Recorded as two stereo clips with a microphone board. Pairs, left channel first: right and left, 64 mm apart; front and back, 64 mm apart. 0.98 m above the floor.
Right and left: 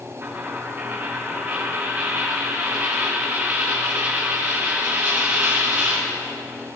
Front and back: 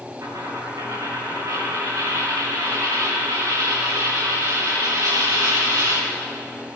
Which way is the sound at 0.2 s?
150° left.